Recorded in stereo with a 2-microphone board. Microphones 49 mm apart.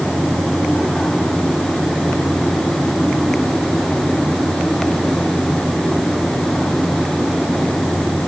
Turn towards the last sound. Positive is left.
No sound to turn to.